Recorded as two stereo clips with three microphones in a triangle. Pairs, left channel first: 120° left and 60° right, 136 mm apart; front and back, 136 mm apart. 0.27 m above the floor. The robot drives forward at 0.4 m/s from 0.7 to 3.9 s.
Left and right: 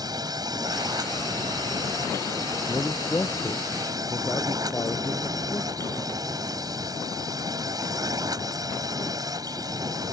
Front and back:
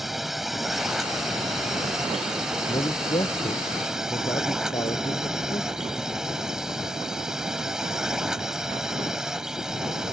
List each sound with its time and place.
0.0 s a drone: 95° right; by 10.2 s 100° right
2.7 s a man speaking: 50° left